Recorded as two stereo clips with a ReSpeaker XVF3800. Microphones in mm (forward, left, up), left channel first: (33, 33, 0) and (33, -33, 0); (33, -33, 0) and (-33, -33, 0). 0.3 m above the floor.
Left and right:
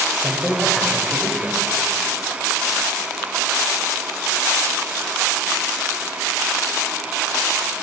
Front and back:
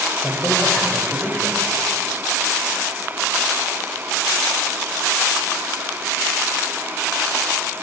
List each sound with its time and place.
0.2 s a woman speaking: 10° left, 1.0 m